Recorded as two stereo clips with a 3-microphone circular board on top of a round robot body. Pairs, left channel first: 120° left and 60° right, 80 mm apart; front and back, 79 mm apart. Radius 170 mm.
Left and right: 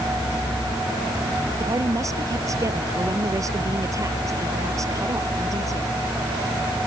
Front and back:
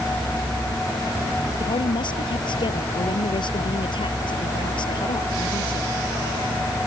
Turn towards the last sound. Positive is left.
turn(degrees=-15)